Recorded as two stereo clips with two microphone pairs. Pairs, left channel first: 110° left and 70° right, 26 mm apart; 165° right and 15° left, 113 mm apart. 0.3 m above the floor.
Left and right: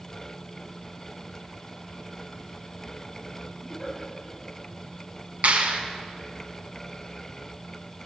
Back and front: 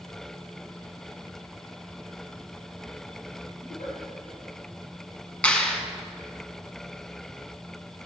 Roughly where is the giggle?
Behind.